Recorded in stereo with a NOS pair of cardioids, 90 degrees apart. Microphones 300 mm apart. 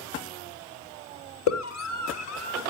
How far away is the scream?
About 4.5 m.